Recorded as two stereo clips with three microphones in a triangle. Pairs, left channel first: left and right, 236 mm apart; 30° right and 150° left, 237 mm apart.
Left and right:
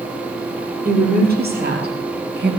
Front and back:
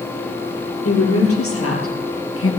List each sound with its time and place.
0.8 s a woman speaking: 40° right, 5 m; by 2.5 s 50° right, 4 m